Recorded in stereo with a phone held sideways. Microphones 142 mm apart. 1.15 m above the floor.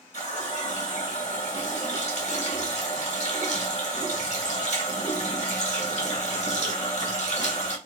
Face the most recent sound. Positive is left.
turn(degrees=55)  # may be behind; listen again after turning